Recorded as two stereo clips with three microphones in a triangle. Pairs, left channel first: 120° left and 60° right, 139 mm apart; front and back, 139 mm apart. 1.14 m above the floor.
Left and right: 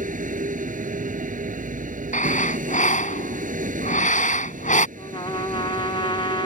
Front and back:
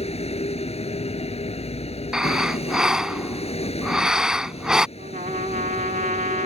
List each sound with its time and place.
0.0 s a vehicle: 40° right
2.1 s breathing: 95° left
5.0 s a trumpet: 170° left